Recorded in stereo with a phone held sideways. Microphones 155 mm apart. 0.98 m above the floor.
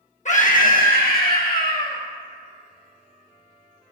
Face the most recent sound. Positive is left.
turn(degrees=75)  # may be behind; listen again after turning